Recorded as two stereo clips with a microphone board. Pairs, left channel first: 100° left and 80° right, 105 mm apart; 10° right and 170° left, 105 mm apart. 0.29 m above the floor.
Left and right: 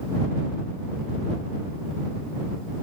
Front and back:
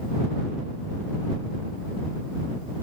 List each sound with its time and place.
Only background noise.